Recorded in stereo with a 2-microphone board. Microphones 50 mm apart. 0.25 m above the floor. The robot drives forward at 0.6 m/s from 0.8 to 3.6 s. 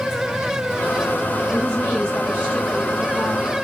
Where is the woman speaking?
20° left (ahead or behind), 3 m; by 3.5 s 30° left (ahead or behind), 2 m.